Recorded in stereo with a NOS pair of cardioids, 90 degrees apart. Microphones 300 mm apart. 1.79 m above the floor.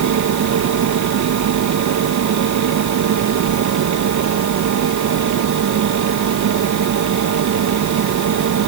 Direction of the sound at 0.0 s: 70° right.